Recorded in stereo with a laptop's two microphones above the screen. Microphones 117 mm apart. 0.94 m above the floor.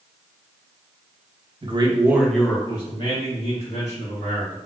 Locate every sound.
1.6 s a man speaking: 45° right (ahead or behind), 0.6 m; by 4.6 s 70° left (ahead or behind), 1.6 m